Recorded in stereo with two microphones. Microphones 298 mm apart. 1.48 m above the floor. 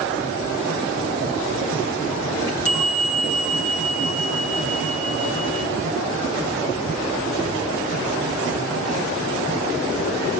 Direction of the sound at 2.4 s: 45° left (ahead or behind).